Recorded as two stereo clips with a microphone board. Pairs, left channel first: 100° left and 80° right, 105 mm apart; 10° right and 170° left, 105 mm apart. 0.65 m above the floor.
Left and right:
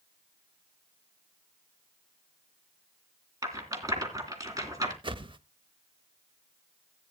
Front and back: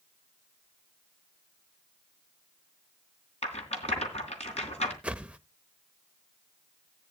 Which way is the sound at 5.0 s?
110° right.